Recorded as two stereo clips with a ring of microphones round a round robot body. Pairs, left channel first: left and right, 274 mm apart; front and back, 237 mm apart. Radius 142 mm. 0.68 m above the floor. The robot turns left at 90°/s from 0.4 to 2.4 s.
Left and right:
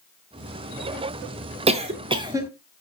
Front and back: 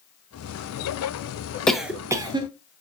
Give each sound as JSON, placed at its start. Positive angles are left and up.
{"t": 1.7, "sound": "a cough", "azimuth_deg": -80, "distance_m": 0.7}